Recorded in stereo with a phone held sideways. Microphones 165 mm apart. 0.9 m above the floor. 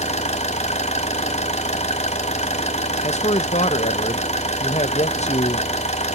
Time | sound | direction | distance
0.0 | an engine running | 40° left (ahead or behind) | 1.6 m
3.0 | a man speaking | 45° left (ahead or behind) | 1.2 m